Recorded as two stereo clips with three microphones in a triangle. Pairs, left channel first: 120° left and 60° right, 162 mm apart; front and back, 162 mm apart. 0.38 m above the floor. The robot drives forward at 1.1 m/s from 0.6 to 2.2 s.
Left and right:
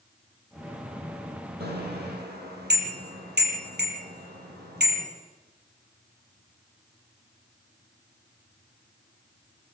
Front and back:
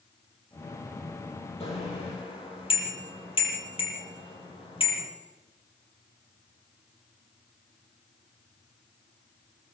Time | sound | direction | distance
1.6 | a bicycle bell | 55° right | 7.5 m